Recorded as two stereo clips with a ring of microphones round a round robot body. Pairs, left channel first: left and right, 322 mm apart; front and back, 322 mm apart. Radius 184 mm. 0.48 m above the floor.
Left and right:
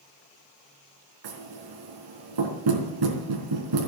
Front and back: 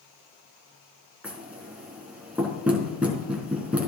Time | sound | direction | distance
1.2 | knocking | 95° right | 3.5 m